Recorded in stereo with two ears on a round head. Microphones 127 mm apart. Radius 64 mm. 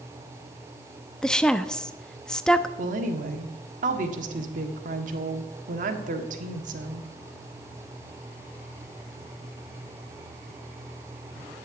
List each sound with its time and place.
1.2 s a woman speaking: 5° left (ahead or behind), 0.6 m
2.8 s a woman speaking: 60° right (ahead or behind), 1.5 m